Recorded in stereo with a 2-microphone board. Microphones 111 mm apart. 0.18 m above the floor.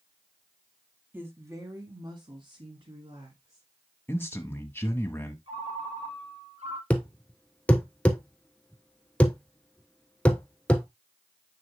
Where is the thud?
10° left (ahead or behind), 0.9 m.